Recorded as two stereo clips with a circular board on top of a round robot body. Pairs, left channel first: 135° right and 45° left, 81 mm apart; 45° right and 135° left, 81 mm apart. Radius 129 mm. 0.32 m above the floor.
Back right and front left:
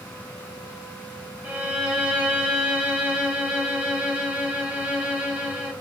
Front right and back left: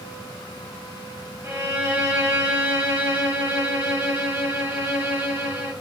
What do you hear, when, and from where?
1.4 s a violin: 95° left, 1.7 m